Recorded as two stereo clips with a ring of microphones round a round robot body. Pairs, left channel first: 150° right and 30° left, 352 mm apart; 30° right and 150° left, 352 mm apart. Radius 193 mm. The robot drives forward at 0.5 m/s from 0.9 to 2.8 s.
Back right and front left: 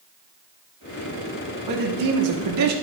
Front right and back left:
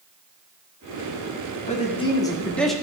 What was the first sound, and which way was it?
A man speaking, 40° left.